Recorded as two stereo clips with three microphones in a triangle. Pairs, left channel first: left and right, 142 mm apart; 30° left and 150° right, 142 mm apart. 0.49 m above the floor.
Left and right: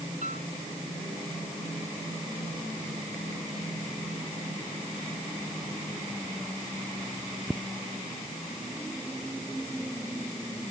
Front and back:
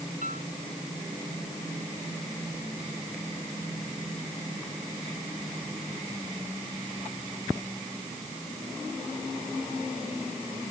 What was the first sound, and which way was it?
A piano, 120° right.